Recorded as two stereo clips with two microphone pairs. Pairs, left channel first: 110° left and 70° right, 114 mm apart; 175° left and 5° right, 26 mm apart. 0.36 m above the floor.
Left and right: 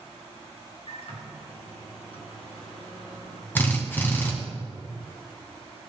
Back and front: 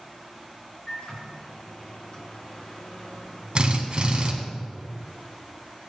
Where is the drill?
40° left, 2 m.